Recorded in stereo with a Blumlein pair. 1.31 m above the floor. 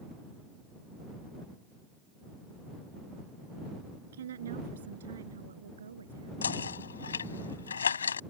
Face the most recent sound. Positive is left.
turn(degrees=70)